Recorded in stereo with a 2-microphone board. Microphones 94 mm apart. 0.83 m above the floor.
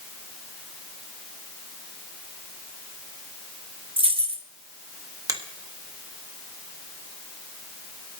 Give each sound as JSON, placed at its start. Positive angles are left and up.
{"t": 4.0, "sound": "keys jangling", "side_deg": -75, "distance_m": 1.2}
{"t": 5.3, "sound": "a finger snap", "side_deg": -40, "distance_m": 1.2}